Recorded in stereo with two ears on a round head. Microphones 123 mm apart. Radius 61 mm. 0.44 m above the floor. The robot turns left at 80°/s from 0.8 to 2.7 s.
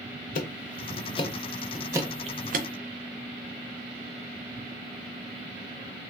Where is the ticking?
65° left (ahead or behind), 0.5 m; by 2.7 s 70° right (ahead or behind), 0.5 m.